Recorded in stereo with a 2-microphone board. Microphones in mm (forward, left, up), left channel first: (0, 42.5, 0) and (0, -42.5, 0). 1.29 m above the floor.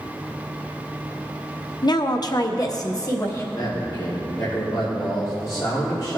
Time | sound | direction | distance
1.8 | a woman speaking | 55° left (ahead or behind) | 0.6 m
3.5 | a man speaking | 55° left (ahead or behind) | 3 m